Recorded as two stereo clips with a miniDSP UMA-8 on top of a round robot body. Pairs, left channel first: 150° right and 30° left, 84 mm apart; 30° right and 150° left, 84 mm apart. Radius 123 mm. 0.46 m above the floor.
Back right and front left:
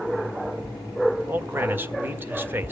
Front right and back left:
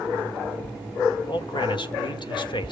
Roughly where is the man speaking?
Ahead right.